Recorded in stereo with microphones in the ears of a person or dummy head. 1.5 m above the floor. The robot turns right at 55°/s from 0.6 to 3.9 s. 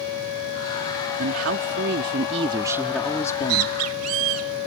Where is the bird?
130° right; by 4.5 s 90° right.